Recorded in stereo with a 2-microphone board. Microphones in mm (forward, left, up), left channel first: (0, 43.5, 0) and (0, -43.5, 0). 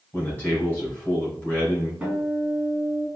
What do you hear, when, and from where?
0.1 s a man speaking: 25° left (ahead or behind), 2.0 m
2.0 s a guitar: 10° right (ahead or behind), 1.8 m